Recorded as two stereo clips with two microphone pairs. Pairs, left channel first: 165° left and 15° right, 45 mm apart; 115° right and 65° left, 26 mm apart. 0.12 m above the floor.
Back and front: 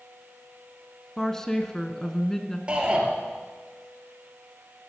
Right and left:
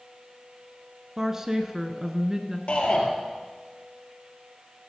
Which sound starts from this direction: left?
A woman speaking, at 1.2 s.